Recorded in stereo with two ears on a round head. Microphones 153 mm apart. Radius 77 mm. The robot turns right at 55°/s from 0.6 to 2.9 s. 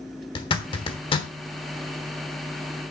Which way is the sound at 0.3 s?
30° left (ahead or behind).